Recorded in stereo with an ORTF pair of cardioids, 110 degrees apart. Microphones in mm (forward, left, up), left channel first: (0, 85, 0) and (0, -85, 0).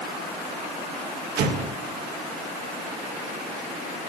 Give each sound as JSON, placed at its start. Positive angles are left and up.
{"t": 1.4, "sound": "an explosion", "azimuth_deg": -65, "distance_m": 1.7}